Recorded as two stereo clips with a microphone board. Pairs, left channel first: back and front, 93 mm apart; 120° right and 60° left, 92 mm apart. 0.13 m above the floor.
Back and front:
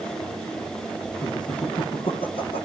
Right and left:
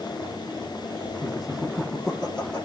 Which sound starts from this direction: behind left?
Laughter, at 1.2 s.